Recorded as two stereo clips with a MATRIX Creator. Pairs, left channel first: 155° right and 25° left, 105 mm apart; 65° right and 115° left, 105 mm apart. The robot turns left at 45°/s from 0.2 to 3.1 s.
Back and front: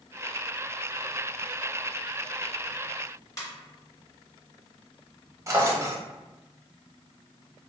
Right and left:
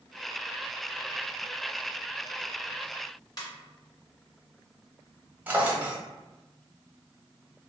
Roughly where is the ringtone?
Right.